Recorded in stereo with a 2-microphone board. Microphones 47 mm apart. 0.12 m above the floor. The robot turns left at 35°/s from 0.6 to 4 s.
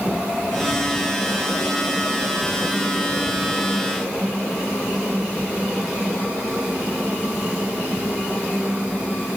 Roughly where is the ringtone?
No ringtone in this recording.